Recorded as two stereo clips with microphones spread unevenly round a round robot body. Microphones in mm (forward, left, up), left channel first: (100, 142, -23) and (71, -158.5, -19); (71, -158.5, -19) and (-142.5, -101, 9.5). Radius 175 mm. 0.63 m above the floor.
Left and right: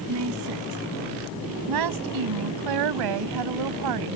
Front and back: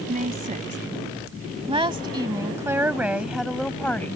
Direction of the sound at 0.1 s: 145° right.